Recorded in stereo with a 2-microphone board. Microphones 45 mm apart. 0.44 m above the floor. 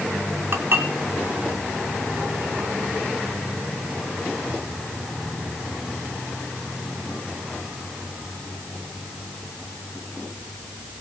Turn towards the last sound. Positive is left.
turn(degrees=-55)  # may be behind; listen again after turning